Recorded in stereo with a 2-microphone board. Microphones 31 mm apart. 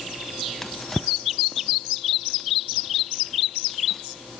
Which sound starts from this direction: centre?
A drawer, at 0.6 s.